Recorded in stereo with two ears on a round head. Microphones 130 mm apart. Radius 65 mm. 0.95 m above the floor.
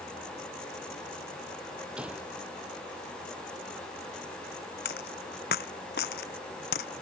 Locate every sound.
2.0 s a gunshot: 5° right (ahead or behind)
4.8 s a dropped coin: 75° left (ahead or behind)